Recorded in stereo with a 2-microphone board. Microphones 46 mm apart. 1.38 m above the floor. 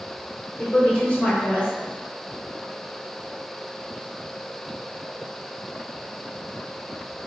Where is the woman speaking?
45° left (ahead or behind), 1.3 m.